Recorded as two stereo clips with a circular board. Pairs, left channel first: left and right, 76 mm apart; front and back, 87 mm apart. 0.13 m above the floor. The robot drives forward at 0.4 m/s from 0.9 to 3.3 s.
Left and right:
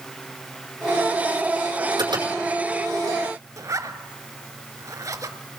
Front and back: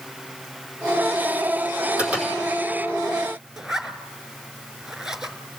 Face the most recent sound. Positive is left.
turn(degrees=-100)